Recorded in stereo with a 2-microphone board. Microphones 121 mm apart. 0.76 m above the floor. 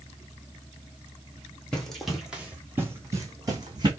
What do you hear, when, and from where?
1.7 s running footsteps: 5° left (ahead or behind), 1.6 m; by 3.9 s 35° right (ahead or behind), 1.9 m